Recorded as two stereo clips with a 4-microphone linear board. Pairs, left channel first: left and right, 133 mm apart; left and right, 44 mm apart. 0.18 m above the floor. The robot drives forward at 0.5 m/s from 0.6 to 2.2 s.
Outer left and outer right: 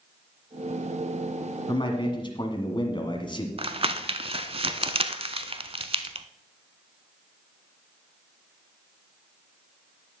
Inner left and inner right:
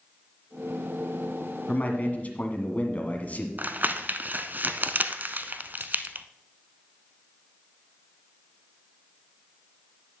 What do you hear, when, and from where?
1.7 s a man speaking: 35° left (ahead or behind), 1.6 m
3.6 s crumpling: 45° right (ahead or behind), 0.6 m